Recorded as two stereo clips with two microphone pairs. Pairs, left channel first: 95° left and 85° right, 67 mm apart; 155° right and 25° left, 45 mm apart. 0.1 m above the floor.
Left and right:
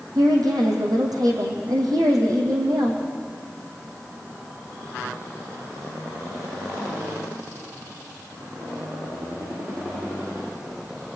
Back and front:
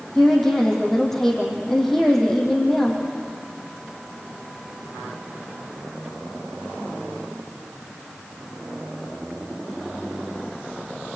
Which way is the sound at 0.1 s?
75° right.